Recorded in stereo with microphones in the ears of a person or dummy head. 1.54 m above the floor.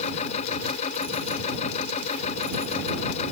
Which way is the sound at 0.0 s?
40° left (ahead or behind).